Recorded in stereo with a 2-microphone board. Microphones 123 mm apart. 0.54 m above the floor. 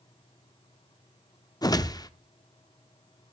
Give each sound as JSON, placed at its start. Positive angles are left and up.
{"t": 1.6, "sound": "a whoosh", "side_deg": 30, "distance_m": 0.5}